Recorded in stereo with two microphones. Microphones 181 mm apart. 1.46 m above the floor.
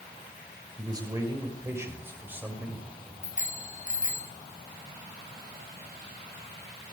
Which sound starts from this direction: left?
A bicycle bell, at 3.2 s.